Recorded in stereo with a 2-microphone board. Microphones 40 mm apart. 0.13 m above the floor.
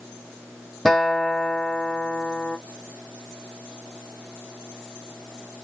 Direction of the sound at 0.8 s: 5° left (ahead or behind).